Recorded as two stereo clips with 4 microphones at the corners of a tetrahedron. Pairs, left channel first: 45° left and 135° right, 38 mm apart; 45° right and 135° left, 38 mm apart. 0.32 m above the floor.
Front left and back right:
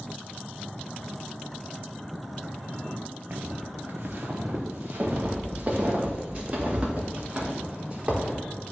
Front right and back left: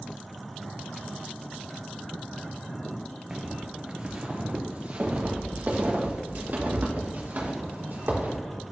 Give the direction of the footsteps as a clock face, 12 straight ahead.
5 o'clock.